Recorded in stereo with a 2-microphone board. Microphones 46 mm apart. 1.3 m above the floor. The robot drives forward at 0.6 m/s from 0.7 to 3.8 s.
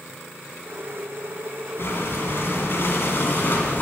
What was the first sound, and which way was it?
Breathing, 55° left (ahead or behind).